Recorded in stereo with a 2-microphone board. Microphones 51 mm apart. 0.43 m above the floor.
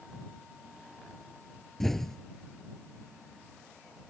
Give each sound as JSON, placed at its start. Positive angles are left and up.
{"t": 1.8, "sound": "an explosion", "side_deg": 5}